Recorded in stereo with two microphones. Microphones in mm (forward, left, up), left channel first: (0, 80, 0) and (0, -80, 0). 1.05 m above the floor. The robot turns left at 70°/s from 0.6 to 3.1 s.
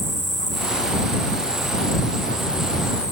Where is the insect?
55° right; by 3.1 s 130° left.